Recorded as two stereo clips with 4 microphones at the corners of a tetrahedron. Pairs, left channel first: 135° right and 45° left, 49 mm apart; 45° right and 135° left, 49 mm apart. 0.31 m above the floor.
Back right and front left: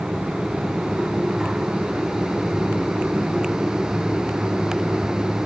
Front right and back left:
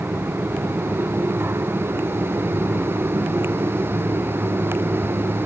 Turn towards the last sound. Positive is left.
No sound to turn to.